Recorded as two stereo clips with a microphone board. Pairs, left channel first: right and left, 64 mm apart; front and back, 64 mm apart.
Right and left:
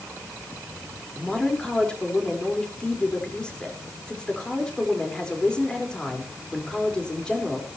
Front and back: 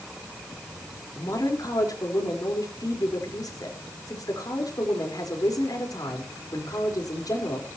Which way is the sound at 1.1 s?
15° right.